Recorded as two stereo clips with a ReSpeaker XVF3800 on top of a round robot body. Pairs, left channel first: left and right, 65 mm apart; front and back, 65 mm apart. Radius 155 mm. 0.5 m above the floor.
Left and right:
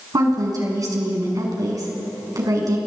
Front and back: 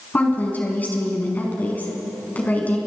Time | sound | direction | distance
0.1 | a woman speaking | 65° right | 6 m